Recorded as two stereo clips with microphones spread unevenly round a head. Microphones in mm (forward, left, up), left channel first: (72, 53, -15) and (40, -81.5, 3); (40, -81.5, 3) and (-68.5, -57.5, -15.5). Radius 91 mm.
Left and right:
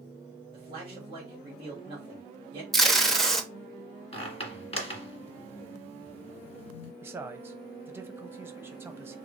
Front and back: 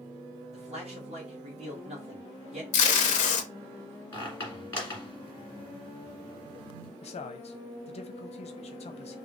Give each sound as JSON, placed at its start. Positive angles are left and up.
{"t": 0.5, "sound": "a man speaking", "azimuth_deg": -165, "distance_m": 1.9}
{"t": 2.7, "sound": "tape being pulled", "azimuth_deg": -10, "distance_m": 0.8}
{"t": 4.1, "sound": "a squeak", "azimuth_deg": 45, "distance_m": 1.7}
{"t": 7.0, "sound": "a man speaking", "azimuth_deg": -30, "distance_m": 0.8}